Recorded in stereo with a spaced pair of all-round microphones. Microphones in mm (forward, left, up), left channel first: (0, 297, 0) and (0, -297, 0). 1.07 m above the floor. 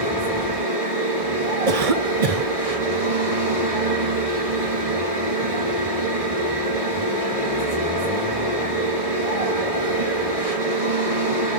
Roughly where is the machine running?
Right.